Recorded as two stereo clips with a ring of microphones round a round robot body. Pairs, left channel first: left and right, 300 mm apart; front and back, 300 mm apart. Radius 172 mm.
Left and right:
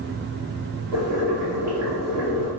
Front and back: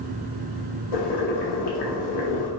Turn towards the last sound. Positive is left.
turn(degrees=-5)